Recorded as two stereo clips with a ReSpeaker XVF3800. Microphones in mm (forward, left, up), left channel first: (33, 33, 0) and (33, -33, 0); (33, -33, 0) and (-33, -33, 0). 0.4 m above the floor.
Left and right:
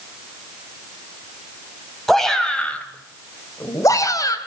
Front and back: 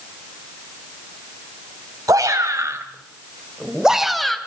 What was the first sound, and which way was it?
A shout, 175° left.